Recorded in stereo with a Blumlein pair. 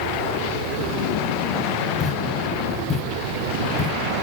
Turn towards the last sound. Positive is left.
turn(degrees=20)